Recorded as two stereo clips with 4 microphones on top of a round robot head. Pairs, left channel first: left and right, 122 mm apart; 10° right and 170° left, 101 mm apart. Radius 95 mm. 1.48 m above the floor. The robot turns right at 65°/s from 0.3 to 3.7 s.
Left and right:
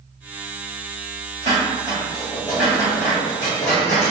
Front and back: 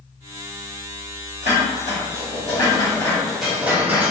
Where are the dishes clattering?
45° right, 0.9 m; by 4.1 s 100° left, 0.9 m.